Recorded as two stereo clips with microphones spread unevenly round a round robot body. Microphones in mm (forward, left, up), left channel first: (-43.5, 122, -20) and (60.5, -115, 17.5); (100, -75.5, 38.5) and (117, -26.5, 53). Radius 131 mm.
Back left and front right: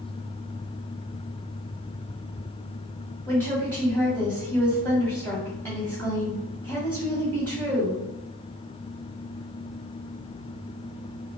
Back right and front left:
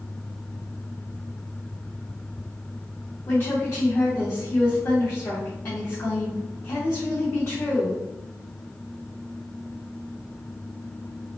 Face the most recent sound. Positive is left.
turn(degrees=-165)